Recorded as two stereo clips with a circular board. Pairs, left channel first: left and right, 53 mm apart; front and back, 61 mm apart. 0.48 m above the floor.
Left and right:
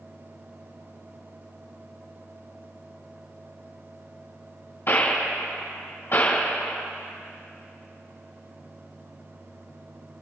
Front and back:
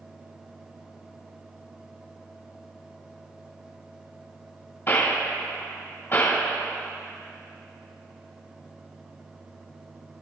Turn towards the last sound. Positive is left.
turn(degrees=55)